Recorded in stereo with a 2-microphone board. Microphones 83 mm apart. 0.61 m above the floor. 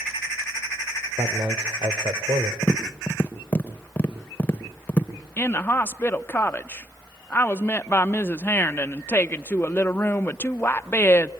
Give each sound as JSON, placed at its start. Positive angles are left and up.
{"t": 1.2, "sound": "a man speaking", "side_deg": -65, "distance_m": 2.0}
{"t": 2.6, "sound": "tapping", "side_deg": 20, "distance_m": 1.8}
{"t": 5.4, "sound": "a woman speaking", "side_deg": 25, "distance_m": 0.7}